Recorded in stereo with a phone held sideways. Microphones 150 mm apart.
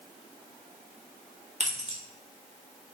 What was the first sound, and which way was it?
Keys jangling, 45° right (ahead or behind).